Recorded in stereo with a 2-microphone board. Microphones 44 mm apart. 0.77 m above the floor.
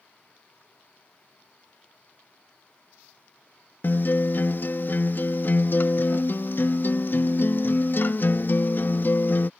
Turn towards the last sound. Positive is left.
turn(degrees=45)  # may be behind; listen again after turning